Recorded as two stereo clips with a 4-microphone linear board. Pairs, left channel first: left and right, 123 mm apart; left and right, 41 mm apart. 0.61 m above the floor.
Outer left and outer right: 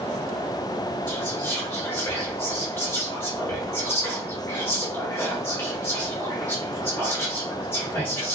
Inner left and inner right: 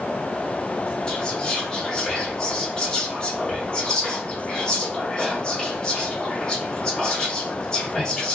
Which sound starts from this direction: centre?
Whispering, at 1.1 s.